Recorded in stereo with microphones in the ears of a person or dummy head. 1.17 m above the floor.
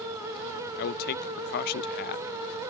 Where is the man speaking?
45° left (ahead or behind), 0.8 m.